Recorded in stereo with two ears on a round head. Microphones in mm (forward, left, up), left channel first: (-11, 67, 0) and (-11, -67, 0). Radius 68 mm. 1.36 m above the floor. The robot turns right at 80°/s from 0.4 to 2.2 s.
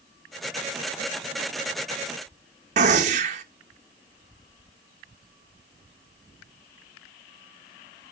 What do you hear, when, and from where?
2.8 s a gunshot: 45° right (ahead or behind), 1.3 m